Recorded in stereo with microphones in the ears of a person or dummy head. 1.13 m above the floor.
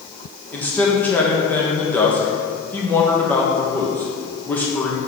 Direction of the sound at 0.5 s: 10° left (ahead or behind).